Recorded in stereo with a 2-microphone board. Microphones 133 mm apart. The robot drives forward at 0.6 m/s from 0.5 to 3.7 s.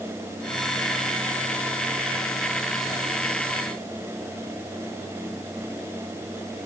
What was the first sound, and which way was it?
Only background noise.